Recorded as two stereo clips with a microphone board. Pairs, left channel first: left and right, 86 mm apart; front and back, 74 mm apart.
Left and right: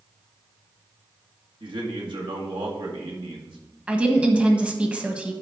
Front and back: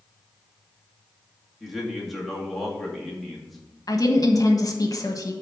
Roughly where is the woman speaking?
Ahead.